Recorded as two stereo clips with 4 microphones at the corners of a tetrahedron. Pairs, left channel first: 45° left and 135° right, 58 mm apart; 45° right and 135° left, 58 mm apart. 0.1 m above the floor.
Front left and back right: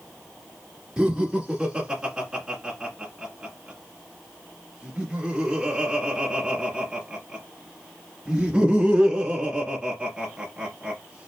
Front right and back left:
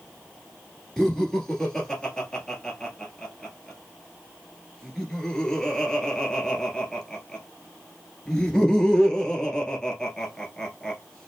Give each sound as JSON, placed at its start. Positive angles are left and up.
{"t": 1.0, "sound": "laughter", "azimuth_deg": -105, "distance_m": 1.5}